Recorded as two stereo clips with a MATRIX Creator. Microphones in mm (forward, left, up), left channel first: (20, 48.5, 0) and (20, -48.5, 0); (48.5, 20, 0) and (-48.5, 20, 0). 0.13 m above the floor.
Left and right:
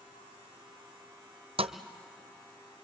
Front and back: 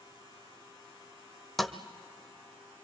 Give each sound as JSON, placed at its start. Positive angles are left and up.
{"t": 1.6, "sound": "a thud", "azimuth_deg": -90, "distance_m": 0.9}